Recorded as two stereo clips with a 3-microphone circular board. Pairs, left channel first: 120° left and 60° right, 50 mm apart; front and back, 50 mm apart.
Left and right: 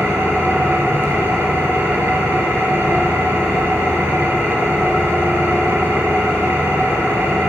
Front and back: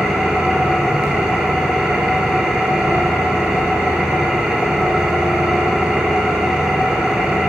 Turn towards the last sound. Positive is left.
turn(degrees=-100)